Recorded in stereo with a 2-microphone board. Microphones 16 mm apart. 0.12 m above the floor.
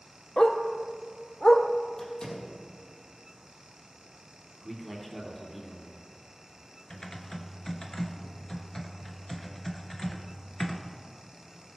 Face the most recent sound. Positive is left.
turn(degrees=40)  # may be behind; listen again after turning